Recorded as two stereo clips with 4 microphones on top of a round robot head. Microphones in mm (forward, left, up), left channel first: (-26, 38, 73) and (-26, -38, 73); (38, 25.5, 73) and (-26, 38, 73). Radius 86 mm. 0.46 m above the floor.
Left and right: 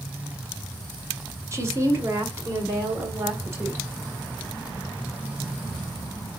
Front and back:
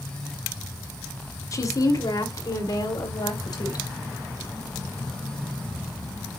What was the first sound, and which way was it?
A woman speaking, 40° right.